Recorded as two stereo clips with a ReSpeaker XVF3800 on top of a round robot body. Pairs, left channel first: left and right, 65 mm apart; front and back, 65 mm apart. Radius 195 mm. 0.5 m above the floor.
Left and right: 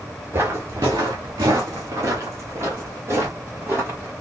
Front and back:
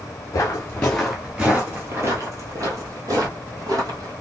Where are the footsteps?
40° right, 0.7 m; by 4.1 s 150° right, 2.0 m.